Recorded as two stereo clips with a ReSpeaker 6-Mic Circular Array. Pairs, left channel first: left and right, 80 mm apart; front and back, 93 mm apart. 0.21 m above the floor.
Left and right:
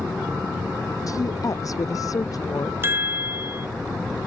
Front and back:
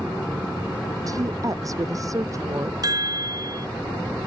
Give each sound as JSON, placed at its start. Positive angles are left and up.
{"t": 1.1, "sound": "a woman speaking", "azimuth_deg": 130}
{"t": 2.8, "sound": "a chime", "azimuth_deg": -145}